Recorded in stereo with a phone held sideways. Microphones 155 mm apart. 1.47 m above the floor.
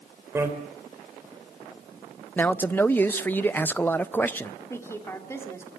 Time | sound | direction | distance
0.3 | a bicycle bell | 15° right (ahead or behind) | 4 m
2.4 | a man speaking | 10° left (ahead or behind) | 0.8 m
4.7 | a woman speaking | 15° left (ahead or behind) | 3.5 m